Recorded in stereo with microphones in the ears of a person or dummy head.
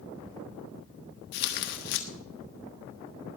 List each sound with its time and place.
1.3 s tearing paper: 45° left (ahead or behind), 1.4 m